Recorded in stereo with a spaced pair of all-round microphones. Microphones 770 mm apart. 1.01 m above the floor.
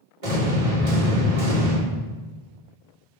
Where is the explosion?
75° right (ahead or behind), 2 m.